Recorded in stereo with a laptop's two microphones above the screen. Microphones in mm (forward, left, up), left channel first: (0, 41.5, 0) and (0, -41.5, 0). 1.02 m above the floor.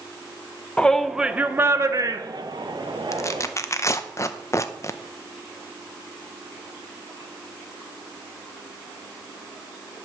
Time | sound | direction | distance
0.8 | a shout | 15° left (ahead or behind) | 0.7 m
3.1 | tearing paper | 35° left (ahead or behind) | 0.6 m